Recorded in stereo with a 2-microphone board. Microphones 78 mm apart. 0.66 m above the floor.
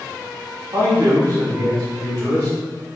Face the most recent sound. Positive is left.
turn(degrees=-55)  # may be behind; listen again after turning